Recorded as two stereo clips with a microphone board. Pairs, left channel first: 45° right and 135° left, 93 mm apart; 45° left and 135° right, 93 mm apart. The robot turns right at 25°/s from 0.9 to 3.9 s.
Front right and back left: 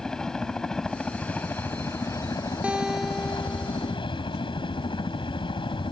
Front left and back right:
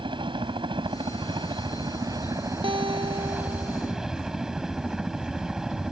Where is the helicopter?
125° right; by 5.9 s 50° right.